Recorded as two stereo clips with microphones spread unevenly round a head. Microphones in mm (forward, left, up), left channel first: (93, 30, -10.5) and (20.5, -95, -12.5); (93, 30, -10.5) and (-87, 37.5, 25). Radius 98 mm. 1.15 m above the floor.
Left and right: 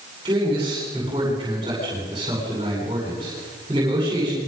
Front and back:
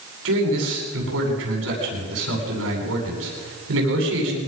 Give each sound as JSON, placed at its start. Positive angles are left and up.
{"t": 0.2, "sound": "a man speaking", "azimuth_deg": 170, "distance_m": 9.5}